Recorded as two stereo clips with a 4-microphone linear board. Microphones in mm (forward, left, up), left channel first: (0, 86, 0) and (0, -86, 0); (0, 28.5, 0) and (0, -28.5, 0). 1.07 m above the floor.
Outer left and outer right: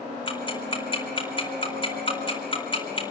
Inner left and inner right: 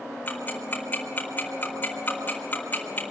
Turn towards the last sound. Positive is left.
turn(degrees=30)  # may be behind; listen again after turning